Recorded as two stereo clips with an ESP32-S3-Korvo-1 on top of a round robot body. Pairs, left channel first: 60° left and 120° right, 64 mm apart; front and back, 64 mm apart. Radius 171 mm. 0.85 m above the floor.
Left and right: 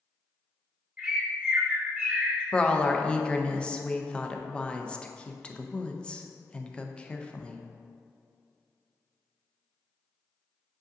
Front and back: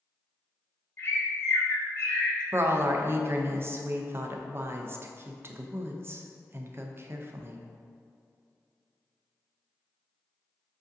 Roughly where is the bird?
Ahead right.